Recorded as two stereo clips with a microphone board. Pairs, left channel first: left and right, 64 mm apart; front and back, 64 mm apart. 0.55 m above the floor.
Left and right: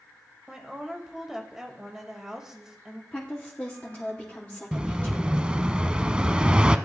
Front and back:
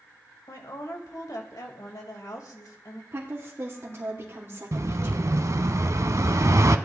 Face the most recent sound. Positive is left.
turn(degrees=-160)